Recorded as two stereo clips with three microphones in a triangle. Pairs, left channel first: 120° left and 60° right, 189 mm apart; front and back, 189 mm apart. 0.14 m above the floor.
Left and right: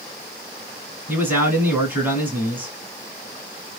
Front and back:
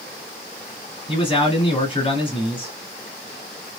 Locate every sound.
1.1 s a man speaking: 5° left, 1.8 m